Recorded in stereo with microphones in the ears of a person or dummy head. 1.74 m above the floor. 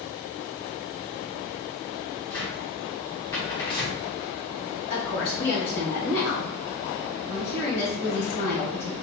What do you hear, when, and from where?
2.3 s a cupboard door: 15° left (ahead or behind), 0.7 m
4.9 s a woman speaking: 50° left (ahead or behind), 1.1 m